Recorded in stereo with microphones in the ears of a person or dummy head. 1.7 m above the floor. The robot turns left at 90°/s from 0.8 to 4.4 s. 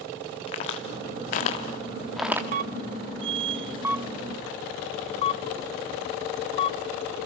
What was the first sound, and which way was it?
A crack, 35° left (ahead or behind).